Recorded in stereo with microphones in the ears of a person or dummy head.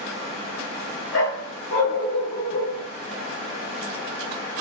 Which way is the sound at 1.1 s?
70° left (ahead or behind).